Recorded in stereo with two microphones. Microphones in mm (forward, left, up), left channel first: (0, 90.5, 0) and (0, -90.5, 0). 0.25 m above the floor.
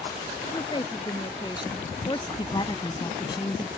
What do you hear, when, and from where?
0.5 s a woman speaking: 25° left (ahead or behind)
2.4 s a woman speaking: 25° left (ahead or behind)